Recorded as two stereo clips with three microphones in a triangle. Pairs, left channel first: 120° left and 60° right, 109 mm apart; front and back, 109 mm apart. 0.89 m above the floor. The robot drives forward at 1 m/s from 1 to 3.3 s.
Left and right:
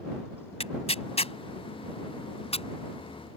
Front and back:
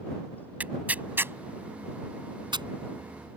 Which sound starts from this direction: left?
Tearing paper, at 0.6 s.